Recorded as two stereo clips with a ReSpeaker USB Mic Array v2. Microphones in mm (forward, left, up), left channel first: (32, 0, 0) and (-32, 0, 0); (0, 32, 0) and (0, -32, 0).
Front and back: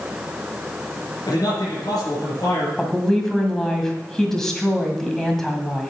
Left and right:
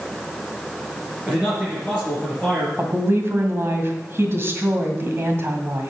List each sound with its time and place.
1.3 s a man speaking: 20° right, 4.5 m
2.8 s a woman speaking: 80° right, 1.8 m